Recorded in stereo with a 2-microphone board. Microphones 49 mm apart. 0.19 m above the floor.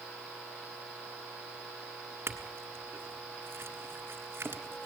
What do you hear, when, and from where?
2.3 s a clink: 55° right (ahead or behind), 1.4 m